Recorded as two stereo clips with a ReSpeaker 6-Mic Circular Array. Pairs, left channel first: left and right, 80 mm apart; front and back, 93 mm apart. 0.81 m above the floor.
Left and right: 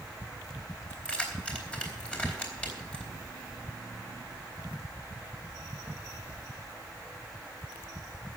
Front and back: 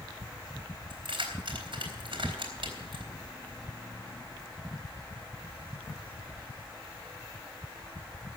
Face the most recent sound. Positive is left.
turn(degrees=165)